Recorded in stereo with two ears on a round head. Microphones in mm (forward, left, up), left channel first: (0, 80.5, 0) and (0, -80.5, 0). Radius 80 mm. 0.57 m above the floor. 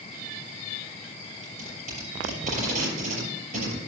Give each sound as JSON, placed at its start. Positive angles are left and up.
{"t": 1.4, "sound": "tape being pulled", "side_deg": -45, "distance_m": 6.0}